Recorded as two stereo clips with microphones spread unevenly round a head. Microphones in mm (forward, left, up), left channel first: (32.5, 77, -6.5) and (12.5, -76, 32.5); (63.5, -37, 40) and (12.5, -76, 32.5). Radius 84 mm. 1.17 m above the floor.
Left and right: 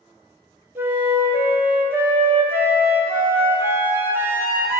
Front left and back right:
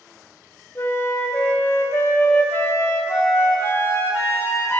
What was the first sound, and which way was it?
A flute, 20° right.